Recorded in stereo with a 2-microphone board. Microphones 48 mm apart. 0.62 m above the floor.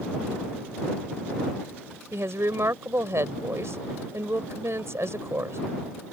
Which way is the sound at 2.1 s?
75° right (ahead or behind).